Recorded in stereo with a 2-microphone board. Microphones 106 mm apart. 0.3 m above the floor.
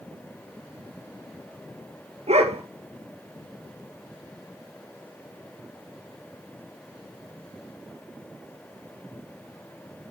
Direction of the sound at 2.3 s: 85° right.